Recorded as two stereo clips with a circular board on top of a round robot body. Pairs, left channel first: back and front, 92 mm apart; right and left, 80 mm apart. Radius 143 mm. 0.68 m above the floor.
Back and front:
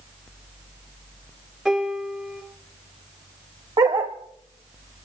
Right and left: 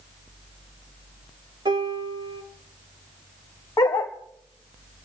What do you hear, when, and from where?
1.6 s a piano: 85° left, 3 m
3.8 s a dog barking: 45° right, 0.7 m